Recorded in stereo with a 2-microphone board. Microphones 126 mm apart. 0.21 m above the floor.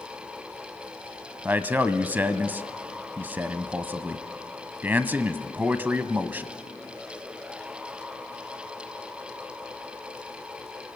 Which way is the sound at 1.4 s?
15° right (ahead or behind).